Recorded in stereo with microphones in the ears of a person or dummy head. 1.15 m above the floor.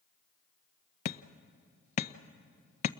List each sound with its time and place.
1.1 s hammering: 45° left (ahead or behind), 0.5 m